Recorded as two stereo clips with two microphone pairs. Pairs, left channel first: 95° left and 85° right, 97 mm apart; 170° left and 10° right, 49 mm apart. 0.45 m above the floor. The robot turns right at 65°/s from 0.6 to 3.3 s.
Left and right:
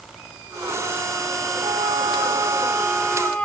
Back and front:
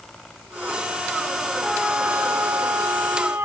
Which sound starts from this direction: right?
A flute, at 1.6 s.